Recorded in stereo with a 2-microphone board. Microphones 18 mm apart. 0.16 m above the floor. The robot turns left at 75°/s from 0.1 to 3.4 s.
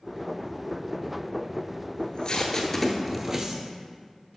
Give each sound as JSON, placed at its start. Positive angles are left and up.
{"t": 2.0, "sound": "tape being pulled", "side_deg": 60, "distance_m": 0.9}